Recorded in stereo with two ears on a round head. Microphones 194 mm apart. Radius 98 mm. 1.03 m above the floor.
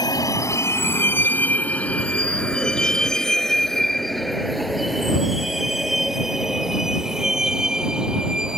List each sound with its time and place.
0.0 s a vehicle: 20° left (ahead or behind); by 8.6 s 5° right (ahead or behind)